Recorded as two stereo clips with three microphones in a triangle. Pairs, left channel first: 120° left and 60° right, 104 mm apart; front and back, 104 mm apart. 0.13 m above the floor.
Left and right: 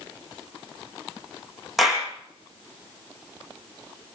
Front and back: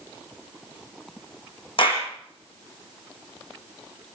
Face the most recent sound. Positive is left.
turn(degrees=30)